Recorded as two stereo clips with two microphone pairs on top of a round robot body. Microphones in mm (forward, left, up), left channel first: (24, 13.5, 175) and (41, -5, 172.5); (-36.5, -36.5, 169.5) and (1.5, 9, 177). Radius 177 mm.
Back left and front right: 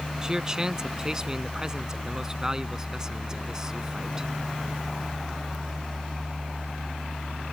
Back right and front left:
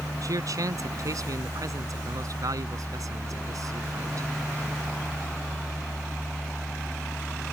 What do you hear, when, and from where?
0.2 s a man speaking: 20° left